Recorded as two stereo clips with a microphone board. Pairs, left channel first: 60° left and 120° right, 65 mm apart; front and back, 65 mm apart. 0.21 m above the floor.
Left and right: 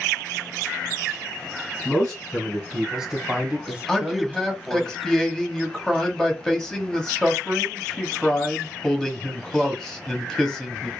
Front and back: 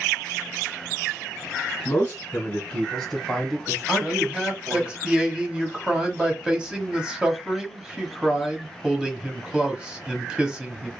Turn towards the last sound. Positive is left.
turn(degrees=125)